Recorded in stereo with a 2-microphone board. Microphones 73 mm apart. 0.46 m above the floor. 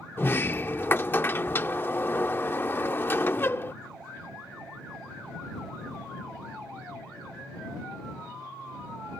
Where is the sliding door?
30° left (ahead or behind).